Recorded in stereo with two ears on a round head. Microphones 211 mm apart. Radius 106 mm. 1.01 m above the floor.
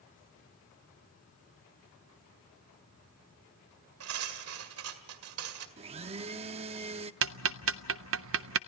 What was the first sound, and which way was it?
Cutlery clinking, 65° right (ahead or behind).